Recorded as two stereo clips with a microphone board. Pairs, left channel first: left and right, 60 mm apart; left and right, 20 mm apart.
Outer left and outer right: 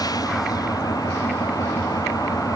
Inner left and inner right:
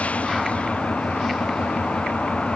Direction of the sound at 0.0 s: 85° left.